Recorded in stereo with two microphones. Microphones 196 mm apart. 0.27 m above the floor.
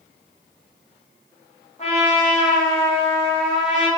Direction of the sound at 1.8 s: 35° left (ahead or behind).